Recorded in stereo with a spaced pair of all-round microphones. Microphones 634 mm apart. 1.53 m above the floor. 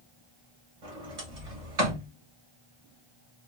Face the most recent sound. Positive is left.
turn(degrees=-60)  # may be behind; listen again after turning